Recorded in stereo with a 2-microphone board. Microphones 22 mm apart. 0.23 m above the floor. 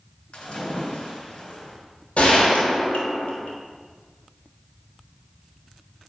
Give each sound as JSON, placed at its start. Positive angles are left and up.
{"t": 0.3, "sound": "a splash", "side_deg": 50, "distance_m": 2.5}
{"t": 2.2, "sound": "a gunshot", "side_deg": 80, "distance_m": 1.8}